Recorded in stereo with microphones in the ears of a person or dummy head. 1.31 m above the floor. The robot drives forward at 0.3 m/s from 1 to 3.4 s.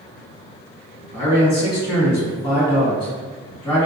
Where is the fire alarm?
I don't hear a fire alarm.